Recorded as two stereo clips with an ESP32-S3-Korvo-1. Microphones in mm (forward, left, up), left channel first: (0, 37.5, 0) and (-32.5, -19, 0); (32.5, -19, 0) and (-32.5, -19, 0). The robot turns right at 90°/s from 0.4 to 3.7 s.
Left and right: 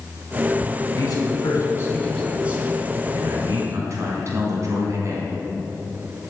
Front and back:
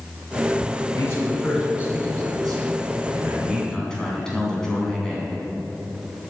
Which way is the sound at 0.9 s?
30° left.